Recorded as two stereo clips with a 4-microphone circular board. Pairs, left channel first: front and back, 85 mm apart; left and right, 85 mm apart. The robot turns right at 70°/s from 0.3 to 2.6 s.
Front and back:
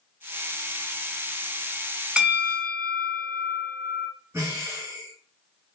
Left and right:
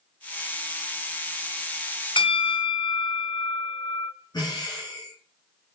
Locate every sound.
2.2 s a bell: 100° left, 0.9 m; by 4.1 s 130° left, 0.9 m
4.3 s breathing: 125° left, 2 m